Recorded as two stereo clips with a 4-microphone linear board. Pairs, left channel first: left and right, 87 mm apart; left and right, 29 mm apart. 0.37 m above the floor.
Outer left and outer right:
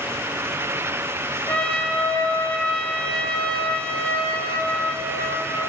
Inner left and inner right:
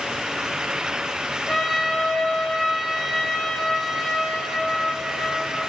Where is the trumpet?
15° left (ahead or behind), 1.2 m.